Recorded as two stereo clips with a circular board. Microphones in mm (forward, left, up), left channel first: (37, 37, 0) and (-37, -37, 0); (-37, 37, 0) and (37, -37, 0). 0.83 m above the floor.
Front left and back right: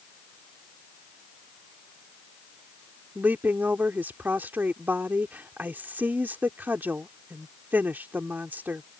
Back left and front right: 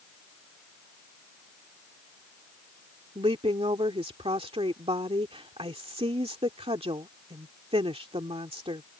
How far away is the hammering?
I don't hear hammering.